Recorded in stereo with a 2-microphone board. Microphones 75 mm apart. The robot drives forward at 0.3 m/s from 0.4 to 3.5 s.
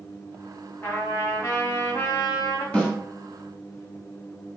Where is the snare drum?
15° left (ahead or behind), 1.1 m.